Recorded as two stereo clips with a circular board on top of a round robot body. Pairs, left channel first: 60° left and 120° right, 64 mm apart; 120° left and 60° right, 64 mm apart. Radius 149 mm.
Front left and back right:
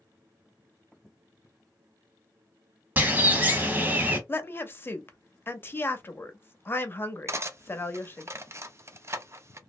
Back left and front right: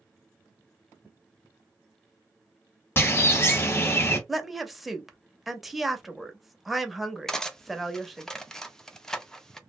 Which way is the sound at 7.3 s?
160° right.